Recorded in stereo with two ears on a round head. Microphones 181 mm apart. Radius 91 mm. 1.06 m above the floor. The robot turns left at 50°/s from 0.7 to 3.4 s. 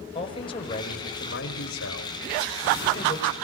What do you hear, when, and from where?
0.1 s a man speaking: 155° left, 5 m; by 3.3 s 20° left, 5 m